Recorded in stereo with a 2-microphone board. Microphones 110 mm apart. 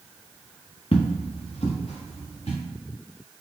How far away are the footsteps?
About 0.8 m.